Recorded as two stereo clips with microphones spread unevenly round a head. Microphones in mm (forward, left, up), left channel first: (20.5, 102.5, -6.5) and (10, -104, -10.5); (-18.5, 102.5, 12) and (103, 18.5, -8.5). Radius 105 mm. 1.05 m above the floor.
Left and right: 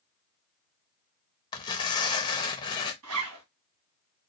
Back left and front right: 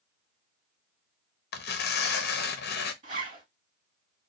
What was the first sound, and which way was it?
Tearing paper, 160° left.